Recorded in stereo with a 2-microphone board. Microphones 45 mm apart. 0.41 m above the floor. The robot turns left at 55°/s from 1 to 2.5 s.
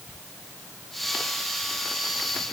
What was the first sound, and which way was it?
Only background noise.